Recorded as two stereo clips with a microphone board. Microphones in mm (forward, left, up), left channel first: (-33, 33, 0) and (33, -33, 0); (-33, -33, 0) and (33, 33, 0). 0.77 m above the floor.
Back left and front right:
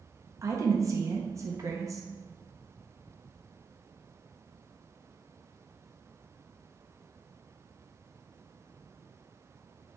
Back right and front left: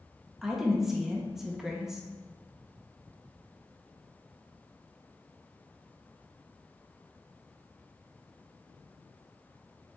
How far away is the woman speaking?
About 0.6 m.